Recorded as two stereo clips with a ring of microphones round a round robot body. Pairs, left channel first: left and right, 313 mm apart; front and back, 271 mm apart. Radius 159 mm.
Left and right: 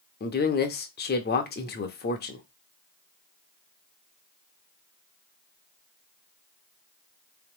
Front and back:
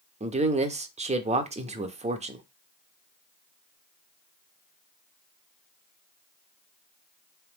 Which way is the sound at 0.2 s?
130° left.